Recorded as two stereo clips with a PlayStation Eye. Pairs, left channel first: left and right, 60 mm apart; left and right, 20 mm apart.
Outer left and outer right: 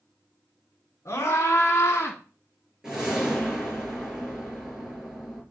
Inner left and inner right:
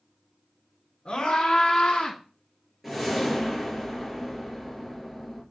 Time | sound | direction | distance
1.1 | a scream | 50° left (ahead or behind) | 3.5 m
2.8 | a whoosh | 10° right (ahead or behind) | 4 m